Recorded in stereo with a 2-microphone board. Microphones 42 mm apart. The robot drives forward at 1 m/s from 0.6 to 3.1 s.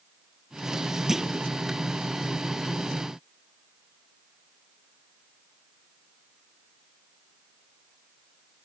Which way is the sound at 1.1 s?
10° right (ahead or behind).